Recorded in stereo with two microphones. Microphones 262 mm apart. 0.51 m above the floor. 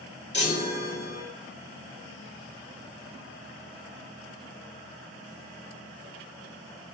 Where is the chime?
40° left (ahead or behind), 1.6 m.